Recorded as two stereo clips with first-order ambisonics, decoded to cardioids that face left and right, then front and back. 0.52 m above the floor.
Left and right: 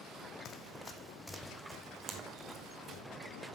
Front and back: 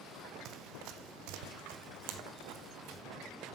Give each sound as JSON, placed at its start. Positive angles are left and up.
{"t": 0.5, "sound": "running footsteps", "azimuth_deg": 140, "distance_m": 1.0}